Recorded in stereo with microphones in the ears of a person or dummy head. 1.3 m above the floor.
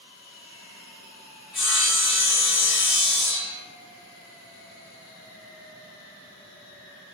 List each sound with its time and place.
1.5 s sawing: 5° right (ahead or behind), 1.8 m